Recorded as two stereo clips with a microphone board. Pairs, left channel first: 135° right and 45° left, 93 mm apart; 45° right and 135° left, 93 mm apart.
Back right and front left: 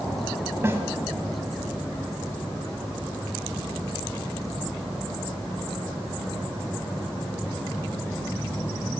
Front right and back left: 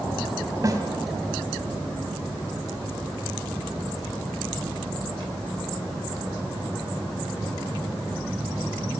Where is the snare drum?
100° left, 2 m.